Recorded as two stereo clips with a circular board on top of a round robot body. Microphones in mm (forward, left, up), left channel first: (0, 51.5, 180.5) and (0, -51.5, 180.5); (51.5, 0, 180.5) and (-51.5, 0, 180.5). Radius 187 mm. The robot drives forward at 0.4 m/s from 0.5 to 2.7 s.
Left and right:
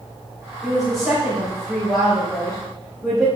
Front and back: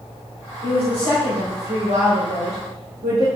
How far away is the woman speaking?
About 3.5 m.